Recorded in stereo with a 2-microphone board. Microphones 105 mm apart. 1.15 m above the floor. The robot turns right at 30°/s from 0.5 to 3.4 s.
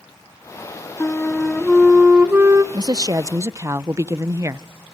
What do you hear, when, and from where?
1.0 s a flute: 160° left, 1.3 m; by 2.6 s 150° right, 1.3 m
2.7 s a woman speaking: 40° right (ahead or behind), 0.7 m; by 4.7 s 25° right (ahead or behind), 0.7 m